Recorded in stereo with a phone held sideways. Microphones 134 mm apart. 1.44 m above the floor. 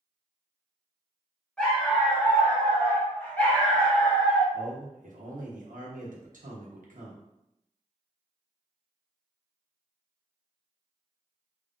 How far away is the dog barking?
About 1.3 m.